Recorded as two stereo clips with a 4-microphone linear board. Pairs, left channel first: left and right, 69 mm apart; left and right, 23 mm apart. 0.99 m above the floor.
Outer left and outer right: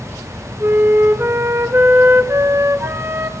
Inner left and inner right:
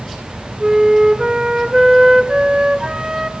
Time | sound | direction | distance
0.6 | a flute | 40° right (ahead or behind) | 1.4 m